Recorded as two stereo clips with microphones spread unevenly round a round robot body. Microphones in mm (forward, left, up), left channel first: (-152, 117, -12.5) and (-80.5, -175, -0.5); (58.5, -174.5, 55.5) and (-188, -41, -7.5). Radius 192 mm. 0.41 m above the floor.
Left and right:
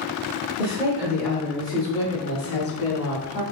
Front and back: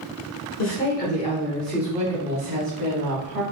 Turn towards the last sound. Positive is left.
turn(degrees=145)